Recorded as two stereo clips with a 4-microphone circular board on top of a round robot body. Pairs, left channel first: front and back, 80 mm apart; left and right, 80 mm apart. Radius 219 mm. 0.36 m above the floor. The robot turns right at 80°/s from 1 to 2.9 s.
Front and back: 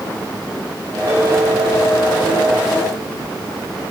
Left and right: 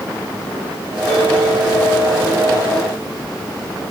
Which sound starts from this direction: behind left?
A bell, at 1.1 s.